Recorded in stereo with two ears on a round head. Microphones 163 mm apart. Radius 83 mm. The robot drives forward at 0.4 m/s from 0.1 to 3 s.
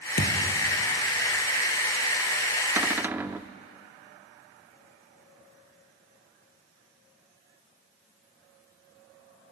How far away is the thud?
About 2.5 m.